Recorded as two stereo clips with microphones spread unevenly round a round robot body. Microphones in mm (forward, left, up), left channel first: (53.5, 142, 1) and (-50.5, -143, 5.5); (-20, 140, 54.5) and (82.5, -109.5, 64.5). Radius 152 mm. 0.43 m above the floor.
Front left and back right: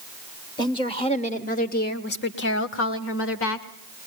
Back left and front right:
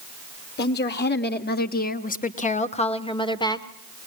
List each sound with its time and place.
0.6 s a woman speaking: 140° left, 1.6 m; by 3.7 s 40° left, 1.7 m